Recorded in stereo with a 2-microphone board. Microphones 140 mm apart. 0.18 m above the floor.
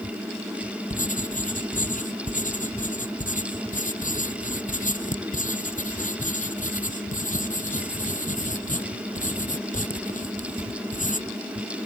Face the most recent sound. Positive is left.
turn(degrees=70)  # may be behind; listen again after turning